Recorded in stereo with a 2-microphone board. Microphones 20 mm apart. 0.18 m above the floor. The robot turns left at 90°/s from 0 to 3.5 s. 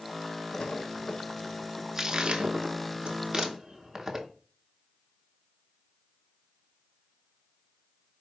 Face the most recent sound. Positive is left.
turn(degrees=-15)  # may be behind; listen again after turning